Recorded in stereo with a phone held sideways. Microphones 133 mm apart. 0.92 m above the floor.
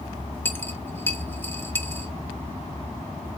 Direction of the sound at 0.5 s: 15° left (ahead or behind).